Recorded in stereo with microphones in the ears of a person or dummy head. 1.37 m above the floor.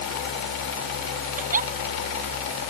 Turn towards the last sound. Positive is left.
turn(degrees=-45)  # may be behind; listen again after turning